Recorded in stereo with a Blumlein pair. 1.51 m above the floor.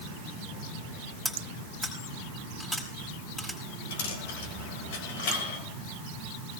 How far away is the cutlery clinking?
About 5 m.